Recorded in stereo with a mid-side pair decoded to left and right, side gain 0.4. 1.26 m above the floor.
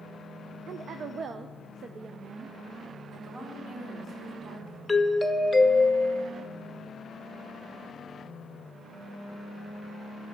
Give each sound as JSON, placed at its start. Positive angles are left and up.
{"t": 0.7, "sound": "a woman speaking", "azimuth_deg": -60, "distance_m": 0.6}
{"t": 3.1, "sound": "a woman speaking", "azimuth_deg": -55, "distance_m": 4.0}
{"t": 4.9, "sound": "a doorbell", "azimuth_deg": 15, "distance_m": 0.8}